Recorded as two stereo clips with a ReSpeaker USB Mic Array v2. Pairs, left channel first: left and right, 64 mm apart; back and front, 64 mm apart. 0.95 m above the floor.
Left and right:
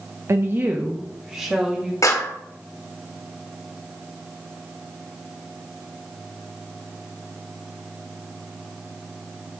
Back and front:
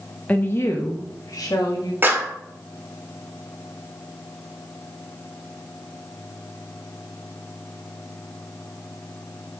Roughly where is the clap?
Ahead left.